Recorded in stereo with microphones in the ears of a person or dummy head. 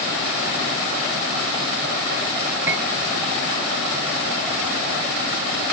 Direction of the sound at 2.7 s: 15° right (ahead or behind).